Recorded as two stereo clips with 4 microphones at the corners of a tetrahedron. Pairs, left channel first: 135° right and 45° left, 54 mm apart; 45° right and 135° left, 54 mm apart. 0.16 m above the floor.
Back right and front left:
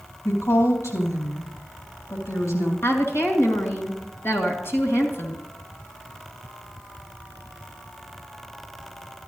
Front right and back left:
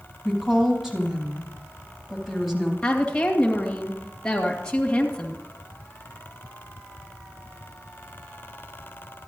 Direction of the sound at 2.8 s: 115° right.